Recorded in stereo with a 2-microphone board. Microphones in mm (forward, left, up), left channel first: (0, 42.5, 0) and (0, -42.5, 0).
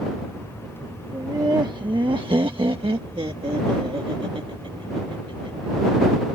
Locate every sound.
1.1 s laughter: 35° right (ahead or behind); by 5.7 s 80° right